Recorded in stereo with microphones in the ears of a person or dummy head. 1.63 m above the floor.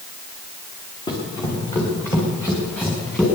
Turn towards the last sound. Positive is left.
turn(degrees=0)  # may be behind; listen again after turning